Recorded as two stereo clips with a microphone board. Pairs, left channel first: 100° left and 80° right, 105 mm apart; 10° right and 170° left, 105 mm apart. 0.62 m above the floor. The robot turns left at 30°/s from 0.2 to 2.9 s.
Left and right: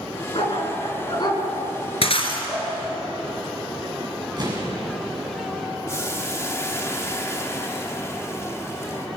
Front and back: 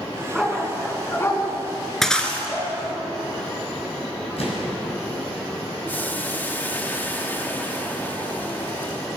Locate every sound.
0.3 s a dog barking: 80° left, 3 m; by 2.7 s 10° left, 3 m
2.0 s breaking glass: 75° left, 2.5 m; by 2.5 s 65° left, 2.5 m
4.4 s an explosion: 35° right, 6 m
5.9 s boiling: 50° left, 1.4 m